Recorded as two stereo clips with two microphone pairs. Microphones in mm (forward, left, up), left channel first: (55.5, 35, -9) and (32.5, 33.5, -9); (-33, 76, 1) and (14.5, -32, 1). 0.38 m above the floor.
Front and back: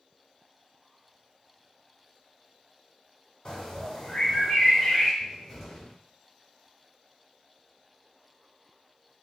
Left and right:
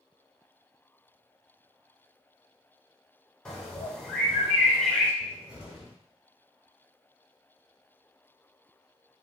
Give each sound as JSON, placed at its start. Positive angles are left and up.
{"t": 3.5, "sound": "a bird", "azimuth_deg": 35, "distance_m": 1.1}
{"t": 5.2, "sound": "a cupboard door", "azimuth_deg": -5, "distance_m": 1.2}